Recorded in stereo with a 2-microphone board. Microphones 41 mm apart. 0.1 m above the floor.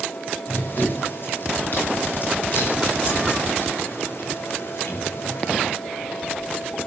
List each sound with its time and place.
0.5 s running footsteps: 50° left (ahead or behind), 8.5 m; by 5.7 s 55° left (ahead or behind), 11 m